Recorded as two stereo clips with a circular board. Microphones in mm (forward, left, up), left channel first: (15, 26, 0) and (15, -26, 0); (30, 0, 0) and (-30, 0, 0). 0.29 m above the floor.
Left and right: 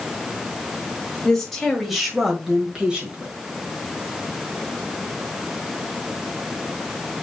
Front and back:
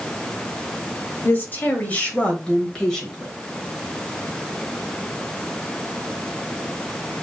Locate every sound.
1.2 s a woman speaking: 20° left, 1.7 m; by 3.3 s 75° right, 1.6 m